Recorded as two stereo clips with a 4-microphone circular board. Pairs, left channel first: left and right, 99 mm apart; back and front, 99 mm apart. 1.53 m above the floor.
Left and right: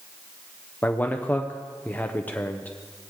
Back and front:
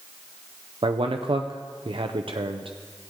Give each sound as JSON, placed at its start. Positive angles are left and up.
{"t": 0.8, "sound": "a man speaking", "azimuth_deg": 20, "distance_m": 0.6}